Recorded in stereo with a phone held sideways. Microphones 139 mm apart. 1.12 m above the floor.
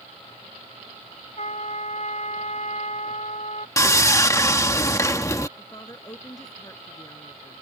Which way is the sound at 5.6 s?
25° left (ahead or behind).